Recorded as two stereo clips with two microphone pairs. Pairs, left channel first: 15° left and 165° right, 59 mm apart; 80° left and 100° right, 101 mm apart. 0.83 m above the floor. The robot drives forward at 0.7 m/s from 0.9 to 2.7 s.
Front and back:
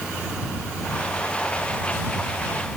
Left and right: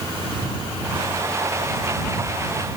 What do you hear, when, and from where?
Only background noise.